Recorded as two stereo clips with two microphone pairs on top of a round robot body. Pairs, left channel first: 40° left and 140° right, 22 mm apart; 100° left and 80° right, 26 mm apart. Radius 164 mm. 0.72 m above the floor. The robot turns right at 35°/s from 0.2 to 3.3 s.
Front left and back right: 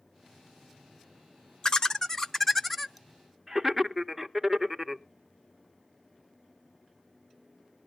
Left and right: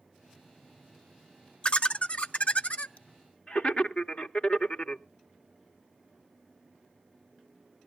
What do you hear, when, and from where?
1.6 s laughter: 75° left, 0.9 m; by 5.0 s 130° left, 0.9 m